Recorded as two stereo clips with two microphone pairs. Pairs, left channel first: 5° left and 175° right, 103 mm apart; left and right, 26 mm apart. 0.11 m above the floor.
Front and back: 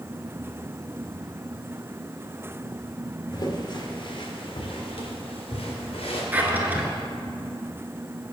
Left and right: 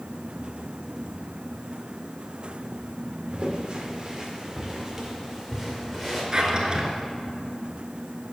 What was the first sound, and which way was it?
Footsteps, 40° right.